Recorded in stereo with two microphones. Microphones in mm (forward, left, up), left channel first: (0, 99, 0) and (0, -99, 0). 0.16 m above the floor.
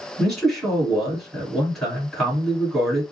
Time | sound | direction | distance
0.2 | a man speaking | 5° left (ahead or behind) | 1.9 m